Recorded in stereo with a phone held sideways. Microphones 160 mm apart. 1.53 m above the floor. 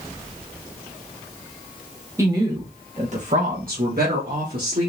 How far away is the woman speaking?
About 1.5 m.